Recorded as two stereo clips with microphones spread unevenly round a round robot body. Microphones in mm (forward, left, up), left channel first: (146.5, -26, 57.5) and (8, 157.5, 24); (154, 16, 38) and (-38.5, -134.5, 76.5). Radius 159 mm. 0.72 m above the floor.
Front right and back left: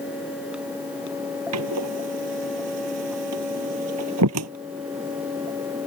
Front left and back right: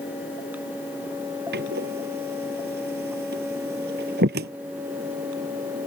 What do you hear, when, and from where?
1.5 s a door slam: 160° left